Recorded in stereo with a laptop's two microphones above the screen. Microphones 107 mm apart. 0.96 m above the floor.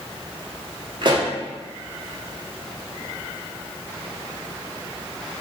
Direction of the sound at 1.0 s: 50° right (ahead or behind).